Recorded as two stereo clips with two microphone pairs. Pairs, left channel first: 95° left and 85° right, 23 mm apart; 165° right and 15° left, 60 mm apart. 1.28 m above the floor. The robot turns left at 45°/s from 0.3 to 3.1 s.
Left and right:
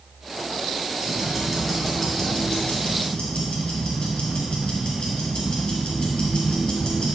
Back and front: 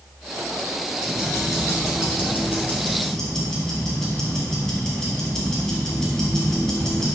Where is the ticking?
150° right, 2.5 m; by 7.1 s 115° left, 2.5 m.